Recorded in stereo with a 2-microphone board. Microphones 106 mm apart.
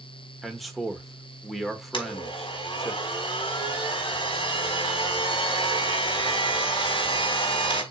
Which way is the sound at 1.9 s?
50° left (ahead or behind).